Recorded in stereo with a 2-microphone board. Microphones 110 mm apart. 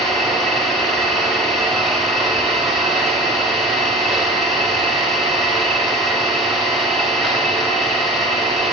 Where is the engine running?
Centre (ahead or behind), 7.5 m.